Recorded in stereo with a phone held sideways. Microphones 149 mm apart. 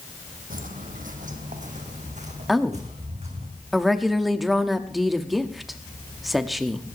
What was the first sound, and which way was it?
Footsteps, 70° right (ahead or behind).